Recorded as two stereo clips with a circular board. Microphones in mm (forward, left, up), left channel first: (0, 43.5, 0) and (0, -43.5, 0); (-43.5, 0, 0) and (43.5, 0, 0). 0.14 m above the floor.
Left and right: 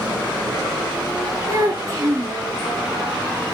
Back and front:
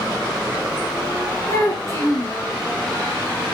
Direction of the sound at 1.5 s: 130° right.